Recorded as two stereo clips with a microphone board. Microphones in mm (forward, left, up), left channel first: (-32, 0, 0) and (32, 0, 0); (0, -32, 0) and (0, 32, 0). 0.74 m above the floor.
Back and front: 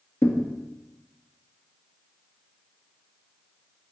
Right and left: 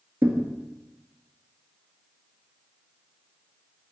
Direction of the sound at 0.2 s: 140° left.